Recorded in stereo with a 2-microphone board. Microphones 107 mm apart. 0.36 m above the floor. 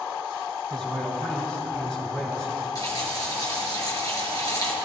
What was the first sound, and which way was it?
A man speaking, 15° left (ahead or behind).